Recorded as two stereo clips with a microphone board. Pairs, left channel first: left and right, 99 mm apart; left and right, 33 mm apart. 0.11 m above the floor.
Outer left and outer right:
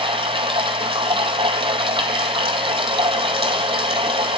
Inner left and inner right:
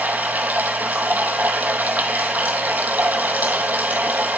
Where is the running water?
65° right (ahead or behind), 0.8 m.